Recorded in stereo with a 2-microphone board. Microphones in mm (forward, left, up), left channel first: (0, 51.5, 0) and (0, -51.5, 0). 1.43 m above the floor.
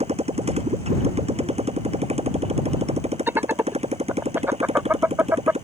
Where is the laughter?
20° right (ahead or behind).